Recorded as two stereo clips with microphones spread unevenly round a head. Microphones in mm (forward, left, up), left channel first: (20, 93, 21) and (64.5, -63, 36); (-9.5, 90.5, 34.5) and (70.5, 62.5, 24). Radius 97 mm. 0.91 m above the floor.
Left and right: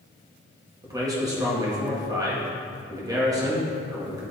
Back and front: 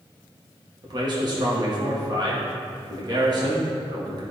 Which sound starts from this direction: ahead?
A man speaking, at 0.8 s.